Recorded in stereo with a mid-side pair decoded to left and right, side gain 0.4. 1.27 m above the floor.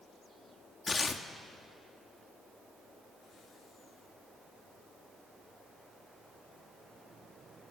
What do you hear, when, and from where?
0.9 s tearing paper: 30° left, 1.8 m